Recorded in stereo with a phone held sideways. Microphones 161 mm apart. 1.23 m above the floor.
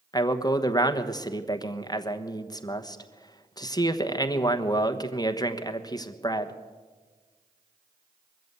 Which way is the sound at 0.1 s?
25° left (ahead or behind).